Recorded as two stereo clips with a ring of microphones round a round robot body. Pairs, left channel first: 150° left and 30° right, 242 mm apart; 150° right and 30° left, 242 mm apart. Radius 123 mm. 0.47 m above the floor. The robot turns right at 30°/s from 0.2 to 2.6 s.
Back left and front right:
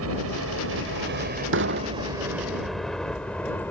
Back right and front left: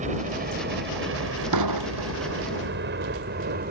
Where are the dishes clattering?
15° left; by 2.3 s 35° left.